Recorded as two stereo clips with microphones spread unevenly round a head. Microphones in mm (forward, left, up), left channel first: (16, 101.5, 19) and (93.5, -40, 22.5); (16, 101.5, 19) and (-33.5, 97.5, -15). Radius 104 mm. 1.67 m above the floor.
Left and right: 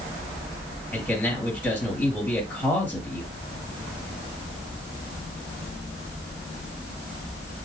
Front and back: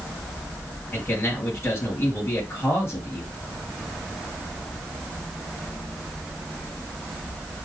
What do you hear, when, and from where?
0.9 s a man speaking: 45° left, 3.5 m